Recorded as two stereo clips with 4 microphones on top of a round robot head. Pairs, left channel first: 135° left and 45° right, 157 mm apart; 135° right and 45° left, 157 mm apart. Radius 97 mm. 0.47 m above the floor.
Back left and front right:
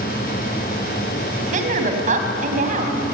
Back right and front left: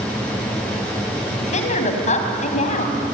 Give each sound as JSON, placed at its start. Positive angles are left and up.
{"t": 1.4, "sound": "a woman speaking", "azimuth_deg": -90, "distance_m": 4.0}